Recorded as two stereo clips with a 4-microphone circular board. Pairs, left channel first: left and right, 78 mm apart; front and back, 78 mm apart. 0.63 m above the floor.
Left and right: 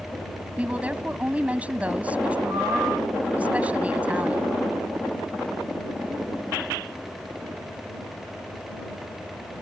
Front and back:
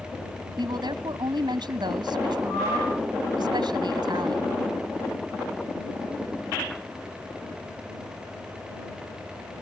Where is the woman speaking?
165° right.